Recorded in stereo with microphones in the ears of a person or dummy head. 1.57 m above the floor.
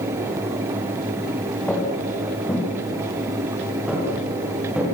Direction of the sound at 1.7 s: 10° left (ahead or behind).